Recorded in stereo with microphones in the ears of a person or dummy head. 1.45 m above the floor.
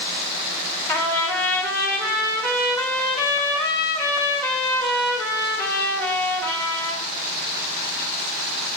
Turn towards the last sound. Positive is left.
turn(degrees=10)  # may be behind; listen again after turning